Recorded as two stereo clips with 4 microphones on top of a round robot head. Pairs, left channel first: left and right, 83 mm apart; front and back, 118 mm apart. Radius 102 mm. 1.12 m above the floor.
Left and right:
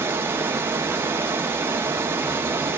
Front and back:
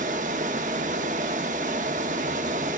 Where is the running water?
145° right, 0.7 m.